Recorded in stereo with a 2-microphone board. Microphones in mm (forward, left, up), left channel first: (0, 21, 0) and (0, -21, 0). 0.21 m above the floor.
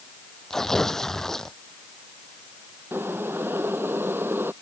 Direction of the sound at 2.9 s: 60° right (ahead or behind).